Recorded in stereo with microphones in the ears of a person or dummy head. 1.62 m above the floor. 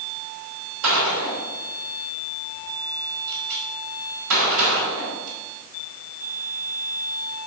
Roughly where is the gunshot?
Right.